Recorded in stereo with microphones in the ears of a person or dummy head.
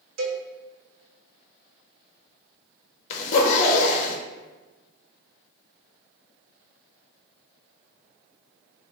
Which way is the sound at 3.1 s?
35° left (ahead or behind).